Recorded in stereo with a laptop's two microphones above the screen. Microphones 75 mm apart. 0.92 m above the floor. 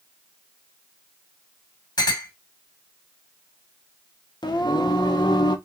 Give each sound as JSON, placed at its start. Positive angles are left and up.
{"t": 2.0, "sound": "a clink", "side_deg": 60, "distance_m": 1.5}
{"t": 4.4, "sound": "singing", "side_deg": 70, "distance_m": 0.6}